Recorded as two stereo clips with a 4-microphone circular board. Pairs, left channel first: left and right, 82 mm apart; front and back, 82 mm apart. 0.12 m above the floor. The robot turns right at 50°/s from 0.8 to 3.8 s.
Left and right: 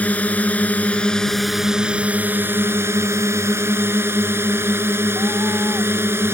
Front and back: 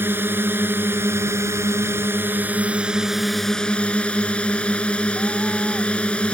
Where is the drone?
145° left; by 6.3 s 65° right.